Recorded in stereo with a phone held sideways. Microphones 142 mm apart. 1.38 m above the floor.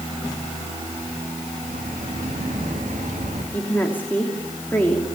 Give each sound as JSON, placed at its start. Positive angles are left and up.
{"t": 1.6, "sound": "footsteps", "side_deg": -65, "distance_m": 6.0}
{"t": 3.5, "sound": "a woman speaking", "side_deg": 15, "distance_m": 3.0}